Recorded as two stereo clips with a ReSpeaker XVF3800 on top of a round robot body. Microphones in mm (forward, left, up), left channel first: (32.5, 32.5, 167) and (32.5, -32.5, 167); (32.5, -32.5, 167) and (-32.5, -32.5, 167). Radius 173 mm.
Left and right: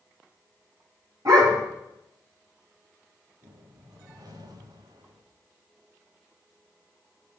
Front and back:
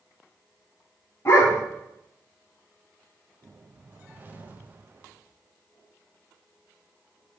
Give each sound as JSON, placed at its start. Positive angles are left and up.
{"t": 1.2, "sound": "a dog barking", "azimuth_deg": -55, "distance_m": 2.5}
{"t": 3.4, "sound": "a whoosh", "azimuth_deg": -115, "distance_m": 0.8}